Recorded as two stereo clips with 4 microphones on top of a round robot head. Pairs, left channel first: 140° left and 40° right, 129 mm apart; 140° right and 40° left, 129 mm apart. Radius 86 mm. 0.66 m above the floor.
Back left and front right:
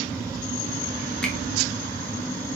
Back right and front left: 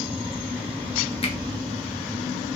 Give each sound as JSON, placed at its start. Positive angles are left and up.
{"t": 1.2, "sound": "a finger snap", "azimuth_deg": -140, "distance_m": 1.2}